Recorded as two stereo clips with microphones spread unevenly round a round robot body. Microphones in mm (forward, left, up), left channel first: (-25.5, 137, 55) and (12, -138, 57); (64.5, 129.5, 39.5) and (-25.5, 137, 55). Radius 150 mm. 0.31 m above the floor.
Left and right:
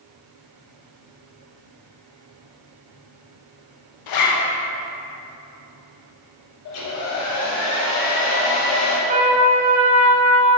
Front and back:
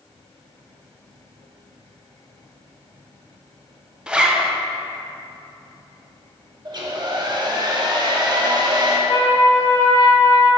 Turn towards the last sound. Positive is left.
turn(degrees=-25)